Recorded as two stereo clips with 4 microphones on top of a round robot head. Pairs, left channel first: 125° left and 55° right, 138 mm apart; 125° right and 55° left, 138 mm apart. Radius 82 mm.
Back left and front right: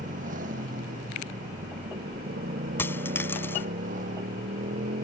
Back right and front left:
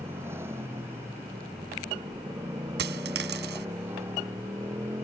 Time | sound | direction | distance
0.0 | a motorcycle | 20° right | ?
2.8 | a dropped coin | 50° left | ?